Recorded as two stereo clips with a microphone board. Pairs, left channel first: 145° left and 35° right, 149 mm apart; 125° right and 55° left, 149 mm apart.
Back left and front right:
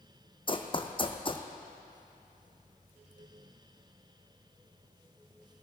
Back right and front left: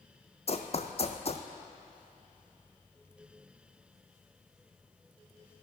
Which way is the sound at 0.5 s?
165° right.